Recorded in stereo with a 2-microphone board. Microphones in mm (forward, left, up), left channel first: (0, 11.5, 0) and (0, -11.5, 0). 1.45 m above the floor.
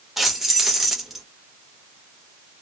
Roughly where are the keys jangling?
Centre.